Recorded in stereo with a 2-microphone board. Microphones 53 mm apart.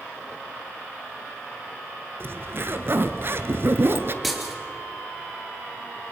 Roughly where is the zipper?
Right.